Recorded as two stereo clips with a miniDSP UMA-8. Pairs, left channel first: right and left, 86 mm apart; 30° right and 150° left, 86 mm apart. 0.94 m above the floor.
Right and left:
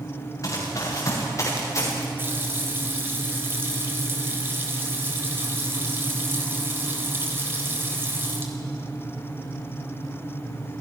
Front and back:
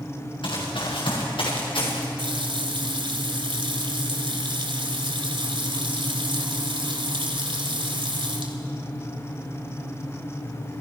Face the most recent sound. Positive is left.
turn(degrees=155)